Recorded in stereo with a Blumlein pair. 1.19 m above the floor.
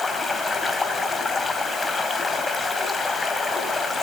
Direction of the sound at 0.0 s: 10° left.